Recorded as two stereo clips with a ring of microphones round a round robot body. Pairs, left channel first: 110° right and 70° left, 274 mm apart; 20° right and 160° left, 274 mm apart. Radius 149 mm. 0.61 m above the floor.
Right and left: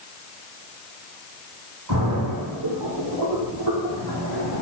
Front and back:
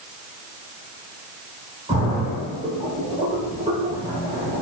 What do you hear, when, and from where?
1.9 s a splash: 85° left, 3.5 m